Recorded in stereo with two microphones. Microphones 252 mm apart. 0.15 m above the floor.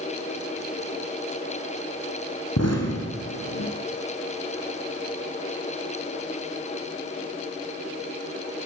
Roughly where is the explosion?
Left.